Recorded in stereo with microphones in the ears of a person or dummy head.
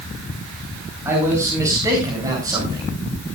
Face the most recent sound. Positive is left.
turn(degrees=-20)  # may be behind; listen again after turning